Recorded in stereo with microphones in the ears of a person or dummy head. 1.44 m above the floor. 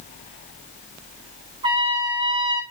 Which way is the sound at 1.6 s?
25° right (ahead or behind).